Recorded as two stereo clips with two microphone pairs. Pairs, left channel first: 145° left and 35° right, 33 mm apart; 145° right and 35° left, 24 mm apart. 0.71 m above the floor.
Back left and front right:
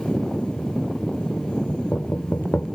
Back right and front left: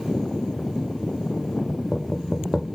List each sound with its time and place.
1.7 s knocking: 125° left